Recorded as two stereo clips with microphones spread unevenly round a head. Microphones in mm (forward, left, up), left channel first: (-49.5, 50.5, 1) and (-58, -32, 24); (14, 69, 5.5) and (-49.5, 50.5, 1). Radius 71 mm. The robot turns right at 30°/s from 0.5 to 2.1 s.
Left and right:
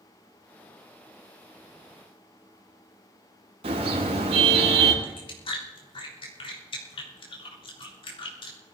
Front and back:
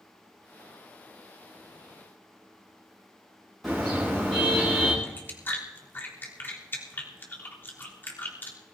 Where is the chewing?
75° left, 3.5 m.